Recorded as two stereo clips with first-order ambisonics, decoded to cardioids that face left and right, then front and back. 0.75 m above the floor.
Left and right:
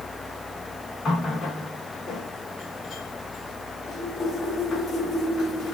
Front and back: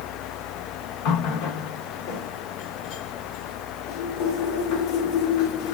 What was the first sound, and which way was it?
A running tap, 20° left.